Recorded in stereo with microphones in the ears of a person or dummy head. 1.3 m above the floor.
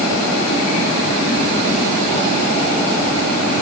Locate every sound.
Only background noise.